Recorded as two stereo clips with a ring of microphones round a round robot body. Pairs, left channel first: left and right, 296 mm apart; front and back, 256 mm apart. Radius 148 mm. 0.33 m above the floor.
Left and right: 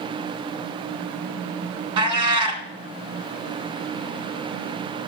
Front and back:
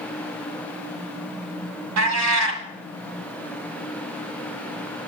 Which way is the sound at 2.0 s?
160° right.